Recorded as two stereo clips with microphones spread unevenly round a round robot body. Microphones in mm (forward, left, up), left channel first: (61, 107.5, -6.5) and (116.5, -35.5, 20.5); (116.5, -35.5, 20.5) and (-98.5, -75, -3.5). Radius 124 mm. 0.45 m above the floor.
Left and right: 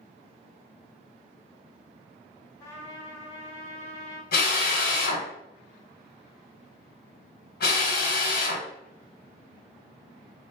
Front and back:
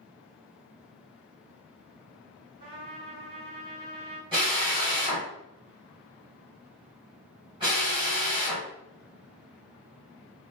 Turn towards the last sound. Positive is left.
turn(degrees=120)